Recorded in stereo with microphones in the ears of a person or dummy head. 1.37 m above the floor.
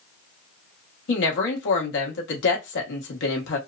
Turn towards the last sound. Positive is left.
turn(degrees=70)  # may be behind; listen again after turning